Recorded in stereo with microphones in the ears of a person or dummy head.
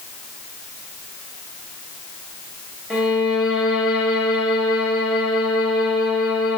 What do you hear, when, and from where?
2.9 s a violin: 5° right (ahead or behind), 1.4 m